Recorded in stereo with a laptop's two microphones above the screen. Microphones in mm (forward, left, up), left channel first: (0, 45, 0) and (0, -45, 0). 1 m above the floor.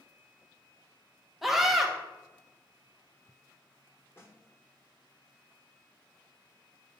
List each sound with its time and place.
1.4 s a scream: 5° right (ahead or behind), 0.8 m
4.2 s a snare drum: 25° left (ahead or behind), 0.9 m